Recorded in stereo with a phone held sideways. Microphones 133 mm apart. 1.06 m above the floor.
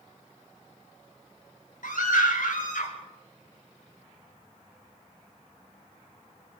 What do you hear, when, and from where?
1.8 s a scream: 80° left, 5.5 m